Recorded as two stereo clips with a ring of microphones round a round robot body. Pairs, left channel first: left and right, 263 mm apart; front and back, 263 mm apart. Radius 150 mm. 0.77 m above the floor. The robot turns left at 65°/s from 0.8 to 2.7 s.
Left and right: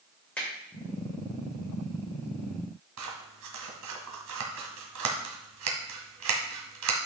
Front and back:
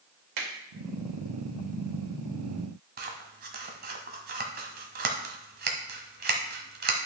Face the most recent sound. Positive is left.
turn(degrees=-125)